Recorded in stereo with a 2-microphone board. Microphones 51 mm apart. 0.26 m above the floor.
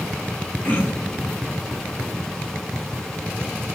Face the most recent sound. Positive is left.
turn(degrees=35)  # may be behind; listen again after turning